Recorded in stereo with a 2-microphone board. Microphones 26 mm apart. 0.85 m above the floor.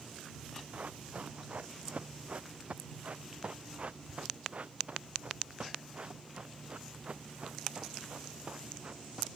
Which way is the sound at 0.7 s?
65° right (ahead or behind).